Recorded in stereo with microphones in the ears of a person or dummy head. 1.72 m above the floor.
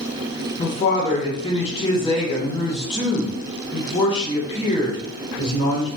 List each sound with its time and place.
0.6 s a woman speaking: 30° left (ahead or behind), 1.2 m